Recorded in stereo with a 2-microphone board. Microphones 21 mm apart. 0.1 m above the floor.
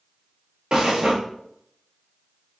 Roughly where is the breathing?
Right.